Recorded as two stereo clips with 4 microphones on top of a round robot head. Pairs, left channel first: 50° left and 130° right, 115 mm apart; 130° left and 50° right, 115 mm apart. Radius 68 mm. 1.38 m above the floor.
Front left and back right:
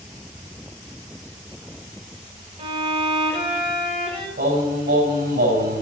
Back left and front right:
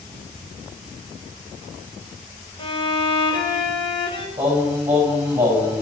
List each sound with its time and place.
2.6 s a violin: straight behind, 2.5 m
4.4 s singing: 130° right, 6 m